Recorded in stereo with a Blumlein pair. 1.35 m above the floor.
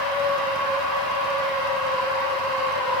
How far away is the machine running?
About 0.8 m.